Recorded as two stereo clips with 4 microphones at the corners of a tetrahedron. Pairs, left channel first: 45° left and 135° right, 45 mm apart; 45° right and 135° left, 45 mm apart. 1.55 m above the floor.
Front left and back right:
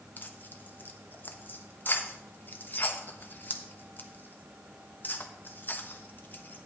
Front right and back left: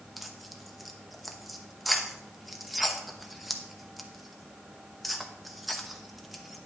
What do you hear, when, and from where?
0.2 s tearing paper: 45° left, 0.9 m